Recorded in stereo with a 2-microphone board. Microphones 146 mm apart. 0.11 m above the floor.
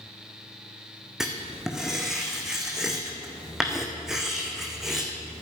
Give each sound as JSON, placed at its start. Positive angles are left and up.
{"t": 1.2, "sound": "writing", "side_deg": -5, "distance_m": 2.0}